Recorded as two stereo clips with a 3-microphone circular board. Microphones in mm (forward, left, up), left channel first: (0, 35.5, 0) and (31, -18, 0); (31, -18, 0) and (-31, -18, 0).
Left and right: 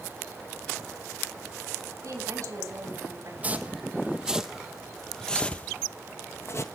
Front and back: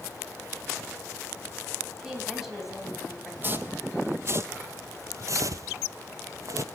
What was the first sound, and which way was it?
A woman speaking, 95° right.